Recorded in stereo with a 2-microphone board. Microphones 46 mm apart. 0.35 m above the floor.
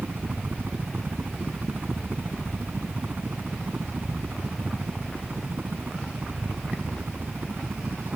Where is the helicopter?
40° right (ahead or behind).